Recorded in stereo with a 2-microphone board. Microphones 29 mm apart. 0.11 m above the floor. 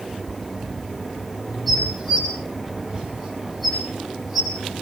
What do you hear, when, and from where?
1.7 s dishes clattering: 5° left (ahead or behind), 8.5 m